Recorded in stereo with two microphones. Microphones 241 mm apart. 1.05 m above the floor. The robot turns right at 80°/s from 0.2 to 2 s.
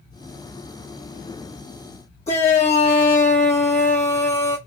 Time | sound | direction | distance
2.3 | a shout | 30° left (ahead or behind) | 1.0 m